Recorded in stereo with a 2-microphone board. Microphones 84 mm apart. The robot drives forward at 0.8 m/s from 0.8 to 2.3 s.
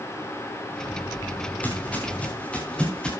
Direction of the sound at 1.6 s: 20° left (ahead or behind).